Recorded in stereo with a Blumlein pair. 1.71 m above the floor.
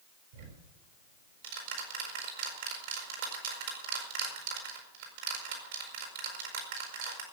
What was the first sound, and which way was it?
Ticking, 55° right.